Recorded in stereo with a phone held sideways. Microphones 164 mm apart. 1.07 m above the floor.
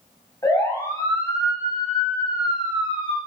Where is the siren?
20° left (ahead or behind), 7.5 m; by 3.2 s 30° left (ahead or behind), 7.5 m.